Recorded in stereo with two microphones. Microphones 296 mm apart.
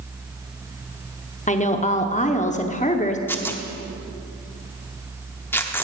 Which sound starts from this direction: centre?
Tearing paper, at 3.3 s.